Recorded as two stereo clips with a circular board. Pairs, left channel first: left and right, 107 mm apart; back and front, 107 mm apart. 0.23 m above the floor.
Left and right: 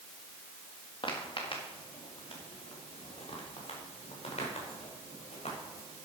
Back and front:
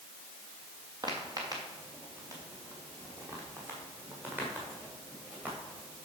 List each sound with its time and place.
1.0 s footsteps: 50° left, 4 m; by 6.1 s 75° left, 7 m